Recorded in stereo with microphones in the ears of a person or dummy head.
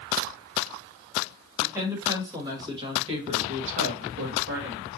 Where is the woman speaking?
15° right (ahead or behind), 2 m; by 5.0 s 70° right (ahead or behind), 1.0 m.